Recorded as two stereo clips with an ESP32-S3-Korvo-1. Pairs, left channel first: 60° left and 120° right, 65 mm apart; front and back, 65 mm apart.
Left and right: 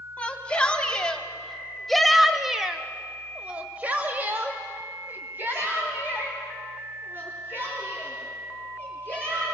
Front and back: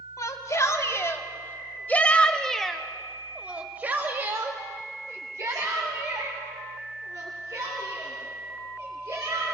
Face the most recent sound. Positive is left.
turn(degrees=-175)